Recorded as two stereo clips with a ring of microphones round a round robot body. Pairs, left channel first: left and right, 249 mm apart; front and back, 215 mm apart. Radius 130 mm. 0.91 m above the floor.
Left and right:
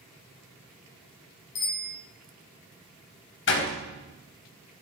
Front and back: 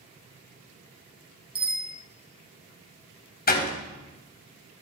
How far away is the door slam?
About 4 m.